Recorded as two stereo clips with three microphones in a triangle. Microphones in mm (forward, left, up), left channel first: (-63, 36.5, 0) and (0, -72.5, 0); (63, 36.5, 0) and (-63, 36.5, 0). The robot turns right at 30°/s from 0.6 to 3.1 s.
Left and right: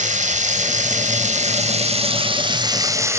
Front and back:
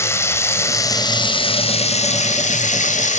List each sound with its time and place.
0.0 s running water: 70° right, 2.5 m; by 3.2 s 5° left, 2.5 m